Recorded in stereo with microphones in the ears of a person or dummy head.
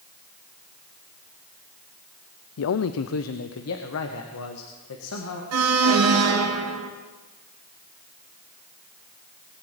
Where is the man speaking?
80° left, 0.5 m; by 5.4 s 85° left, 2.0 m.